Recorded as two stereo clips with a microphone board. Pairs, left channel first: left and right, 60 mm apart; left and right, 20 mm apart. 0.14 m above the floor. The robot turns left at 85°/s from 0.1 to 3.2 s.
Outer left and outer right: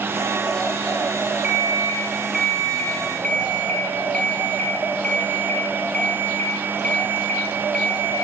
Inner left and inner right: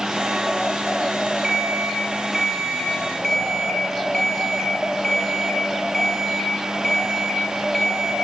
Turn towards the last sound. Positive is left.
turn(degrees=20)  # may be behind; listen again after turning